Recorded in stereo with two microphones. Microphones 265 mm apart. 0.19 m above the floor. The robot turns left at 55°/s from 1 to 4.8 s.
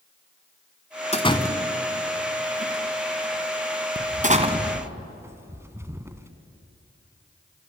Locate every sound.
1.1 s a door slam: 25° left (ahead or behind), 1.3 m; by 6.3 s 10° right (ahead or behind), 1.3 m